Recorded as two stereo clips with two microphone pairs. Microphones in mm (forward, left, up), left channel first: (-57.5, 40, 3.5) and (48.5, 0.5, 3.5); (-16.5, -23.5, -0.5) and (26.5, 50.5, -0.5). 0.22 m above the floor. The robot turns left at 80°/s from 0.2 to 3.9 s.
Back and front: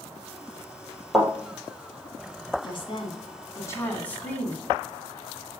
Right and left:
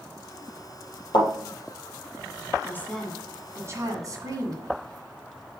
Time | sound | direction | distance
1.1 | a thud | 110° right | 3 m
2.6 | a woman speaking | 170° right | 1.6 m